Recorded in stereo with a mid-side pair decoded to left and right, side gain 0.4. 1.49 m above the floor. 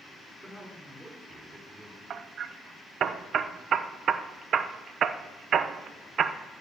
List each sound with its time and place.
0.4 s a man speaking: 25° right, 5 m
2.1 s hammering: 60° right, 0.8 m